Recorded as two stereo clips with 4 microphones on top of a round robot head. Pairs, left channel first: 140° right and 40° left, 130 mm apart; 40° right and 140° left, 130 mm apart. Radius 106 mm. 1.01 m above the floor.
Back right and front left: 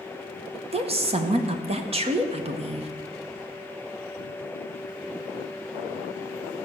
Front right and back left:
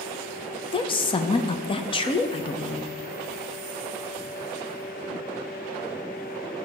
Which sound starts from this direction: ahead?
A woman speaking, at 0.7 s.